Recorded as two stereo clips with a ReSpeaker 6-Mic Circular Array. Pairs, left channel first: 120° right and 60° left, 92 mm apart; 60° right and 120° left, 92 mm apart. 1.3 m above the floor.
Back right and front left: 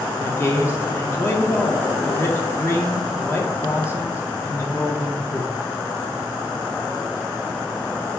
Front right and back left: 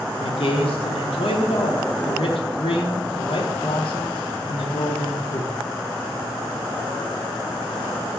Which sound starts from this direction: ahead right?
A man speaking, at 0.2 s.